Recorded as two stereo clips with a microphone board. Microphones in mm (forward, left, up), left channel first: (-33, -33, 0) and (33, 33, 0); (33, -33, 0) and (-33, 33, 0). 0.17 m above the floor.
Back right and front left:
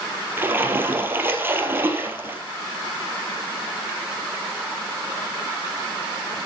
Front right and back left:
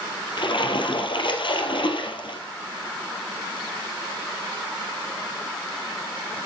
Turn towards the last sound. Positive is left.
turn(degrees=-20)